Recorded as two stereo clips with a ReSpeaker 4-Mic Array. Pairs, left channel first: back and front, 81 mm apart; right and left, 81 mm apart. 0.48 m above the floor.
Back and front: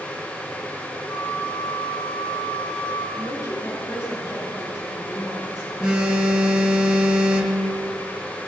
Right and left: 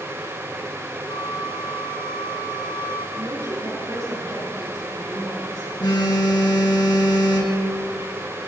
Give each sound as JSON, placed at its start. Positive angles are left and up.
{"t": 1.1, "sound": "a flute", "azimuth_deg": -110, "distance_m": 4.0}
{"t": 3.2, "sound": "a woman speaking", "azimuth_deg": 130, "distance_m": 8.5}
{"t": 5.8, "sound": "a phone buzzing", "azimuth_deg": -75, "distance_m": 4.0}